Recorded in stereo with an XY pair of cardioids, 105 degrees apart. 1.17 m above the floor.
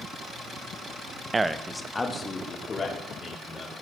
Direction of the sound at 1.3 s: 30° right.